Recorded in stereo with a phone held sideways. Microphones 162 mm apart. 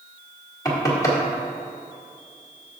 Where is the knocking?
25° left (ahead or behind), 2 m.